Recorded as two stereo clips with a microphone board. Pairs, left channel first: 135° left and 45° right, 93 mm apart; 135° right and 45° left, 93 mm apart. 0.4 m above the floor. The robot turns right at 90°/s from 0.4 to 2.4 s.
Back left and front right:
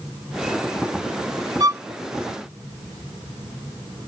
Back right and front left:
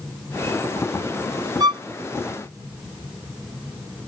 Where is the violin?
Straight ahead; by 1.8 s 20° left.